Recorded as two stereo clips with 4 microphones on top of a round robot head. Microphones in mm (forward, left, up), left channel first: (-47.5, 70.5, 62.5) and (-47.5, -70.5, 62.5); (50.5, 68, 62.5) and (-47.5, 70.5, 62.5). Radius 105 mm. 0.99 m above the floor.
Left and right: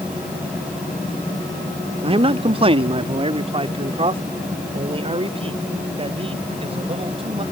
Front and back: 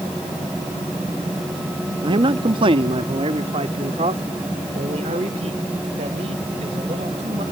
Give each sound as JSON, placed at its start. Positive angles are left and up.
{"t": 2.0, "sound": "a man speaking", "azimuth_deg": -140}